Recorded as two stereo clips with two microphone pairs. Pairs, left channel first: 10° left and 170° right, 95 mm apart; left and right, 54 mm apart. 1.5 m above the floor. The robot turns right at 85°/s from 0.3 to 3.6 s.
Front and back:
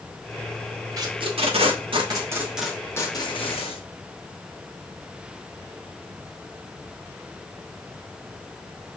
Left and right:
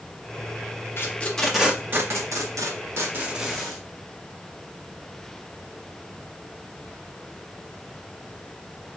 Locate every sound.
1.0 s tape being pulled: 135° left, 1.0 m; by 3.8 s straight ahead, 1.0 m